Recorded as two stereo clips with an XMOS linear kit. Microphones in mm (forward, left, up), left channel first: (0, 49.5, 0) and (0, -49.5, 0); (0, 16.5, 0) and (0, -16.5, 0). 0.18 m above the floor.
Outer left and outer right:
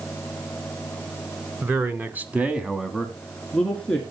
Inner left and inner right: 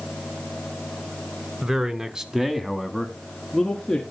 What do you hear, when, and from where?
1.6 s a man speaking: 20° right (ahead or behind), 1.4 m; by 4.0 s 10° left (ahead or behind), 2 m